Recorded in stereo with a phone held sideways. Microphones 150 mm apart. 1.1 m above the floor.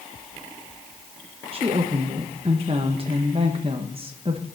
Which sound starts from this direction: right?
A woman speaking, at 1.5 s.